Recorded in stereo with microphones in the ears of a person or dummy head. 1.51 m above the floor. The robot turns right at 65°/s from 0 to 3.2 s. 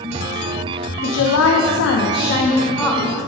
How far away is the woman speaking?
About 0.7 m.